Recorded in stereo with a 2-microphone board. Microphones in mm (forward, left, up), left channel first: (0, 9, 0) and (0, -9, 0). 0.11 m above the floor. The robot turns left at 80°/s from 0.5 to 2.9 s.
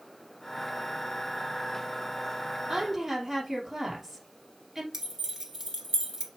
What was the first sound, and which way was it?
A woman speaking, 10° right (ahead or behind).